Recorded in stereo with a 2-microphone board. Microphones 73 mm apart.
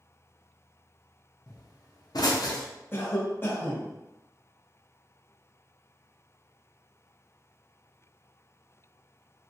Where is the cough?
30° left (ahead or behind), 0.7 m.